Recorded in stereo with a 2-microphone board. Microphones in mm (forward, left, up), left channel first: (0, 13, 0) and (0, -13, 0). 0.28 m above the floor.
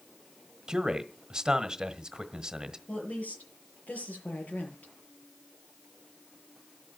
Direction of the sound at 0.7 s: 30° right (ahead or behind).